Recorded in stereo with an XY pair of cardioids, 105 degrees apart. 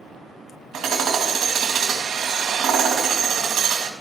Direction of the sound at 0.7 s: 70° right.